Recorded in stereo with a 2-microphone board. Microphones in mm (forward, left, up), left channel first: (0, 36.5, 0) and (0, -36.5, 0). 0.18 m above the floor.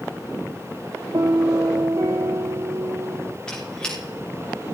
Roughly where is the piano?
Right.